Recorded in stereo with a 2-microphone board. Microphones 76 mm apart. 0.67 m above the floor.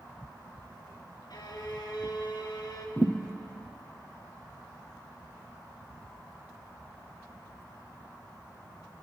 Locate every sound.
1.3 s a violin: 65° left (ahead or behind), 1.4 m
3.0 s a thud: 20° right (ahead or behind), 1.6 m